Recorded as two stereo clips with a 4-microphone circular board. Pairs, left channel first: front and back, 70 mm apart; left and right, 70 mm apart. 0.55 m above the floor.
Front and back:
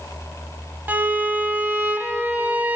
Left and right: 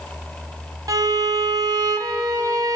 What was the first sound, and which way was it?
A violin, 115° right.